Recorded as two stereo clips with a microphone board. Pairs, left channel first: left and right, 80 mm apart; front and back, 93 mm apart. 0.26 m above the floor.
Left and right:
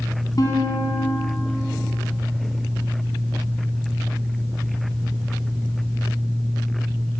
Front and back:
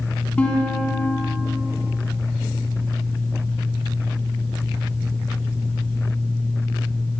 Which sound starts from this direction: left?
A guitar, at 0.4 s.